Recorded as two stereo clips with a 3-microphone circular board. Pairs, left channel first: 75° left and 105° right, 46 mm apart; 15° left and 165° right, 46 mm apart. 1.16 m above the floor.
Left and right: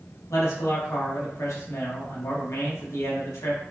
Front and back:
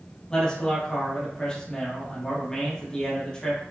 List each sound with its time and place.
0.3 s a man speaking: 90° left, 1.0 m